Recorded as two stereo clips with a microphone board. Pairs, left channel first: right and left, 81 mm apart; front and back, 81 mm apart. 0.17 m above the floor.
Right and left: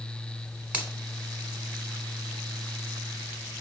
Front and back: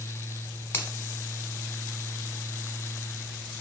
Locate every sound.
0.7 s a finger snap: 30° left, 0.9 m